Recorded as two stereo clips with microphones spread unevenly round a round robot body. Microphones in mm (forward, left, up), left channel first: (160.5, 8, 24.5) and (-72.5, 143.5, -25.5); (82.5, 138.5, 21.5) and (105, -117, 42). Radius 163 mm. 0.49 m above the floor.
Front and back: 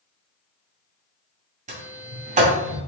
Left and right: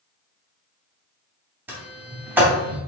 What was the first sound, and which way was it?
A sliding door, 170° right.